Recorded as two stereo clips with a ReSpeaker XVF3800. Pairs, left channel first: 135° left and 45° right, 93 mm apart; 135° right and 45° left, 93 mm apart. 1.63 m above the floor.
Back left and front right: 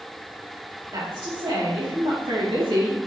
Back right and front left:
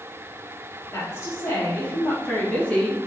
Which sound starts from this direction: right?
A woman speaking, at 0.9 s.